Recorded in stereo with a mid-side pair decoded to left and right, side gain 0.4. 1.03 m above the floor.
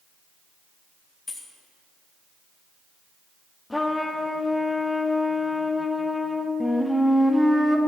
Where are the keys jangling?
35° left, 1.2 m.